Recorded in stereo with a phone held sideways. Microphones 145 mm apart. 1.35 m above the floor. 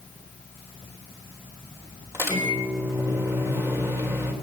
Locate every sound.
2.1 s a microwave: 20° right (ahead or behind), 3.5 m